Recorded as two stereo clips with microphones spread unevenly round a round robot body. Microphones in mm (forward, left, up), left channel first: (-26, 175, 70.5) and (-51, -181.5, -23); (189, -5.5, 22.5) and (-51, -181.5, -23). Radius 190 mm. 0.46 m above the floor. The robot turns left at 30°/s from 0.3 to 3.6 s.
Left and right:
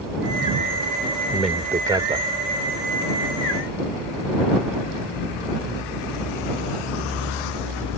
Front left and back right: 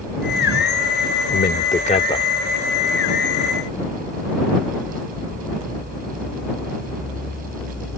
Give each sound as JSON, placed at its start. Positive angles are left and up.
{"t": 1.3, "sound": "a man speaking", "azimuth_deg": -15}